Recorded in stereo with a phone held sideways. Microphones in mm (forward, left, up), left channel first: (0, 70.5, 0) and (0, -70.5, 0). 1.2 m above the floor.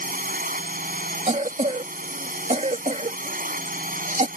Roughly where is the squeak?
No squeak in this recording.